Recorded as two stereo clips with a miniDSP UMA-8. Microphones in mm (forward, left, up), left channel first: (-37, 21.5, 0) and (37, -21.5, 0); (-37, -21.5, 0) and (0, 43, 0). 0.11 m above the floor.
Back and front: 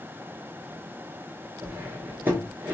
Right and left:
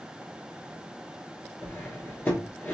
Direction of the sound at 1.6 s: 80° right.